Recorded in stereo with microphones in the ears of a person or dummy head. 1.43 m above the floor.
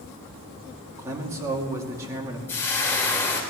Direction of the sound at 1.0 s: 15° right (ahead or behind).